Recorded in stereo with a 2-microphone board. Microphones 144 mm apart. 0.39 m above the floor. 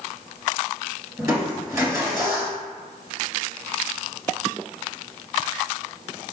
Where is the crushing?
20° right (ahead or behind), 1.0 m.